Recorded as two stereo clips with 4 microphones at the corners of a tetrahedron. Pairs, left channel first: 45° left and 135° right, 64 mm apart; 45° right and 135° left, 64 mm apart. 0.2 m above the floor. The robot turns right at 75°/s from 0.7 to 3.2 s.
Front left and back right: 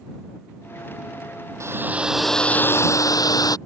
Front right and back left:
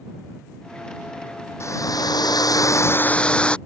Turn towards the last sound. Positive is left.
turn(degrees=30)